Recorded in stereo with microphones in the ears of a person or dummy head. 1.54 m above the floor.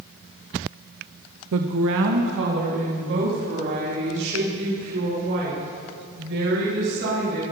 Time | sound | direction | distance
1.5 | a woman speaking | 70° right (ahead or behind) | 0.6 m